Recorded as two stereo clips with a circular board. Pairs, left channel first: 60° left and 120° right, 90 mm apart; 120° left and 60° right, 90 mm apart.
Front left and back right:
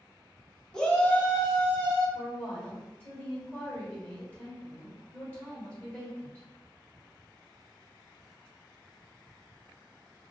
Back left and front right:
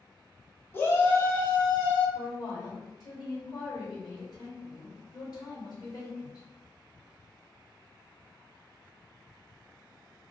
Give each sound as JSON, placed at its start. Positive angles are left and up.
{"t": 0.7, "sound": "a shout", "azimuth_deg": 135, "distance_m": 0.7}
{"t": 2.1, "sound": "a woman speaking", "azimuth_deg": 135, "distance_m": 1.6}